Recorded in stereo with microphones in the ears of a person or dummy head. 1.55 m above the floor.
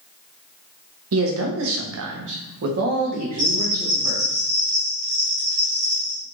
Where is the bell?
45° right (ahead or behind), 1.5 m.